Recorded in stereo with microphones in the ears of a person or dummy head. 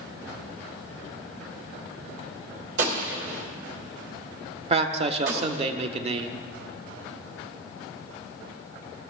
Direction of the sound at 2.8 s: 70° right (ahead or behind).